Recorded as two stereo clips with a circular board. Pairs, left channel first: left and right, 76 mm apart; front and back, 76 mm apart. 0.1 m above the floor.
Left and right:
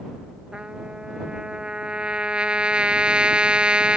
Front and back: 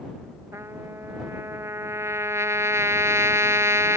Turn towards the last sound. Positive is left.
turn(degrees=-160)